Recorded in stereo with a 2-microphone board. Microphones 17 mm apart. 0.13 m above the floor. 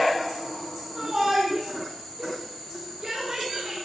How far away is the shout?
About 5.5 m.